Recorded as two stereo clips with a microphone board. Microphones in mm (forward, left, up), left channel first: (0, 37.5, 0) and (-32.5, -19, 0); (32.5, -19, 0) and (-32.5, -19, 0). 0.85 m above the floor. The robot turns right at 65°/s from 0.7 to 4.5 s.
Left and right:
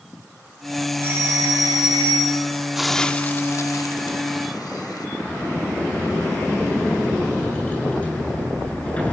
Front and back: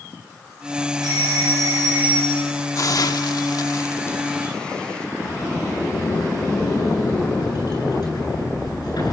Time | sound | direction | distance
1.0 | a doorbell | straight behind | 6 m
2.8 | a hiss | 35° right | 1.0 m
5.2 | a sliding door | 10° right | 7 m